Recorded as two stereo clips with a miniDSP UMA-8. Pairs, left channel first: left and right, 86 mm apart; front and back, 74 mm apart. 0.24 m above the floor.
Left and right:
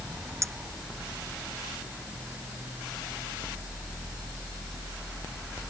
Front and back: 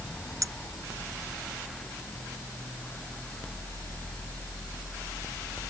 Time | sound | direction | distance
0.4 | a clink | 145° right | ?